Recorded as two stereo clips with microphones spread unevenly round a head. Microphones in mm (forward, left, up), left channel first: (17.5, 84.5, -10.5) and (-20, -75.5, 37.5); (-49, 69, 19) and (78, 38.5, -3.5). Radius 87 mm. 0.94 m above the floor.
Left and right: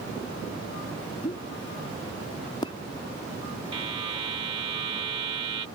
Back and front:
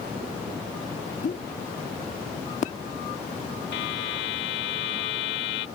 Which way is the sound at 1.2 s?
140° left.